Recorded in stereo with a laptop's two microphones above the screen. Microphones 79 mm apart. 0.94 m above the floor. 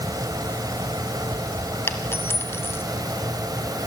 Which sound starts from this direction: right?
A fan, at 0.0 s.